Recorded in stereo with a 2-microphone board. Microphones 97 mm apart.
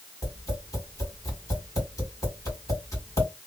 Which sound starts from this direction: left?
Tapping, at 0.2 s.